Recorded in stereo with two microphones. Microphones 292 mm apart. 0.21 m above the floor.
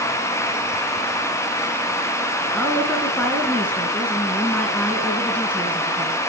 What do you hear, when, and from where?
2.5 s a woman speaking: 5° left (ahead or behind), 2 m